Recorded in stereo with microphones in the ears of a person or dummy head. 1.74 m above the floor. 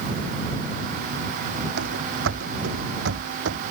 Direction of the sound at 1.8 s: 75° right (ahead or behind).